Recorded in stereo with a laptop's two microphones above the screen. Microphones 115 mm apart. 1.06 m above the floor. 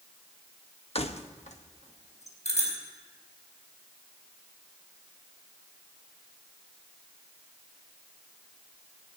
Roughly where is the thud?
No thud in this recording.